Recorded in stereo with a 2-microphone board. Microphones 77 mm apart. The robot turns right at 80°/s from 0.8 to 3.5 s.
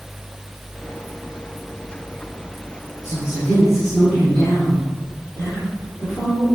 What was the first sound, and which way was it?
A woman speaking, 110° left.